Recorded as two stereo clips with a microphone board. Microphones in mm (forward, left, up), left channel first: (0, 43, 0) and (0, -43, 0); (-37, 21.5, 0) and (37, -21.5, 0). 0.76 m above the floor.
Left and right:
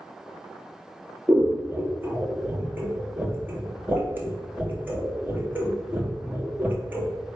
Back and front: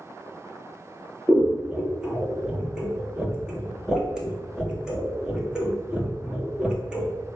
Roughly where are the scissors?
Right.